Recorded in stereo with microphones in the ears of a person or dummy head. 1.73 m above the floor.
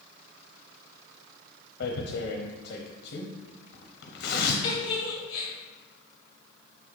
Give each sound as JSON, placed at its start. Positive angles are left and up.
{"t": 1.8, "sound": "tearing paper", "side_deg": 55, "distance_m": 0.8}
{"t": 4.6, "sound": "a giggle", "side_deg": 35, "distance_m": 2.0}